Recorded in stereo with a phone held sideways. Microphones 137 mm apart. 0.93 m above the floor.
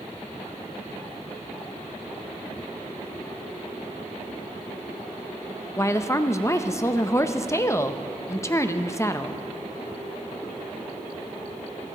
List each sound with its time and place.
5.8 s a woman speaking: 20° left (ahead or behind), 0.6 m